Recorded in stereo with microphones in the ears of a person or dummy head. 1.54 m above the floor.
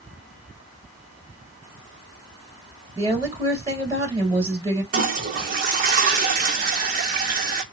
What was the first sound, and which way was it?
A woman speaking, 25° right (ahead or behind).